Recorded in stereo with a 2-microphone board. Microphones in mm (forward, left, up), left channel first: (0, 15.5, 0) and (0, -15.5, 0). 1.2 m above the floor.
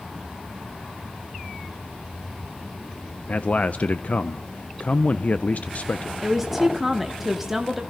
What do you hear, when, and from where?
3.3 s a man speaking: 50° left (ahead or behind), 0.6 m
6.2 s a woman speaking: 5° right (ahead or behind), 1.3 m